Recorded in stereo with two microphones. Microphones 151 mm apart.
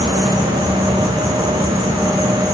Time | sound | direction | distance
0.0 | an insect | 15° left (ahead or behind) | 1.0 m